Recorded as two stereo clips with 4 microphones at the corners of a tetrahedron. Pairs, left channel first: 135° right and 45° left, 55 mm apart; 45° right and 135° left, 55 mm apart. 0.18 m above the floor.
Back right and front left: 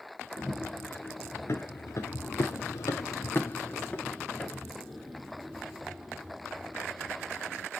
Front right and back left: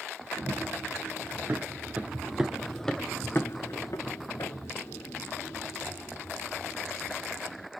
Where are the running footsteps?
175° left, 1.4 m; by 7.7 s 35° right, 2.5 m.